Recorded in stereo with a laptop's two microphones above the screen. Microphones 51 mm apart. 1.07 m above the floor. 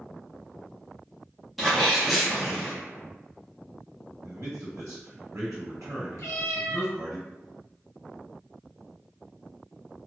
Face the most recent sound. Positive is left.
turn(degrees=70)  # may be behind; listen again after turning